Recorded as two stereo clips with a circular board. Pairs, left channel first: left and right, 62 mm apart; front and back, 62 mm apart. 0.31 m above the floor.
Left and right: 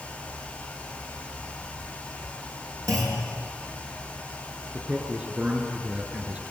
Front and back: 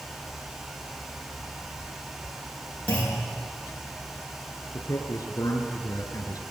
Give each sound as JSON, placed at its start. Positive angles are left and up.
{"t": 2.9, "sound": "a clunk", "azimuth_deg": -65, "distance_m": 6.0}
{"t": 4.7, "sound": "a man speaking", "azimuth_deg": -20, "distance_m": 4.5}